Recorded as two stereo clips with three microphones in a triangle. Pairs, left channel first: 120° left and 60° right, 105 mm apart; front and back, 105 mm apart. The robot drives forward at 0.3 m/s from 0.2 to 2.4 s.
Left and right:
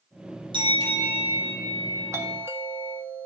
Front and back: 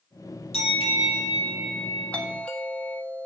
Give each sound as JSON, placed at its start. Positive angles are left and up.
{"t": 0.5, "sound": "a bell", "azimuth_deg": -20, "distance_m": 5.5}
{"t": 2.1, "sound": "a doorbell", "azimuth_deg": -55, "distance_m": 1.8}